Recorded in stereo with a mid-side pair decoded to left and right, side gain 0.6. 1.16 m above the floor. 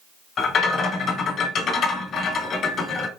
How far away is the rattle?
About 1.3 m.